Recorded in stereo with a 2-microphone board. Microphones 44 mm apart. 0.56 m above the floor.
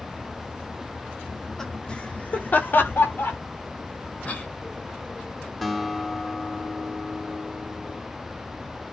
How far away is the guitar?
About 1.4 m.